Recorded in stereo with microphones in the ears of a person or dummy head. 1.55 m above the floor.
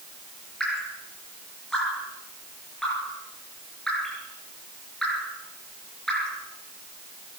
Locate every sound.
0.6 s dripping: 5° left (ahead or behind), 4 m